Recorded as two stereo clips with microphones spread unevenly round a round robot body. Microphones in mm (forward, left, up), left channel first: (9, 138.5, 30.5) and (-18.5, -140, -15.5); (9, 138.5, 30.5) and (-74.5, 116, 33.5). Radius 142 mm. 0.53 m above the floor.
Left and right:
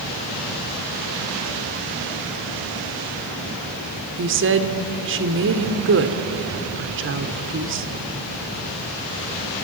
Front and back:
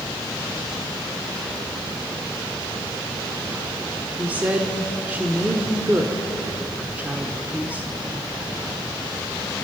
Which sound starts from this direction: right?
A woman speaking, at 4.2 s.